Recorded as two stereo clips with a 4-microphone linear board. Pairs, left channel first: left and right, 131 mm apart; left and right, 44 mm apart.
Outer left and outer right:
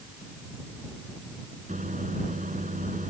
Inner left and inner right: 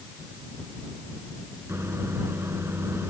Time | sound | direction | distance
1.7 | a microwave | 80° right | ?